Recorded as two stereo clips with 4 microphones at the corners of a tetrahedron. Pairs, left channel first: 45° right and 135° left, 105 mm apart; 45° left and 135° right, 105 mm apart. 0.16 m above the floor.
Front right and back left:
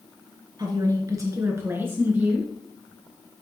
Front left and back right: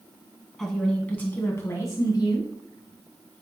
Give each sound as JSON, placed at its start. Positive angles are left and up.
{"t": 0.6, "sound": "a woman speaking", "azimuth_deg": 130, "distance_m": 1.4}